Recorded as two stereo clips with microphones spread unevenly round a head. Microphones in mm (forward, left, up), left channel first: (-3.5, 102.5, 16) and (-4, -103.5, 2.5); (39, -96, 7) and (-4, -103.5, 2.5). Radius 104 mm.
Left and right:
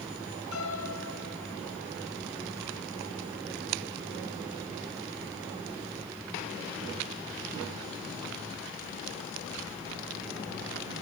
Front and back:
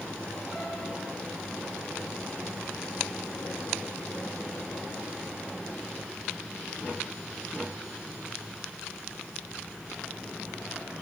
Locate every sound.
0.5 s a piano: 100° left, 4.5 m